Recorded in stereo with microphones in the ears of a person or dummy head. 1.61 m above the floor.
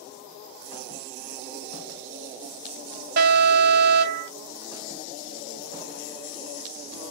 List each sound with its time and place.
3.2 s an alarm: 50° right (ahead or behind), 1.0 m